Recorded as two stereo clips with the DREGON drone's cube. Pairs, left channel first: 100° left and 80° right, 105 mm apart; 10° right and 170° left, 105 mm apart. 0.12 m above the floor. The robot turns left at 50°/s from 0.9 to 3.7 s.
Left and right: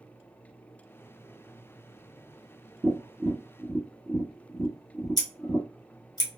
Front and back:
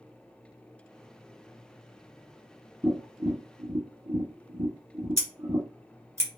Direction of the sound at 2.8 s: 130° right.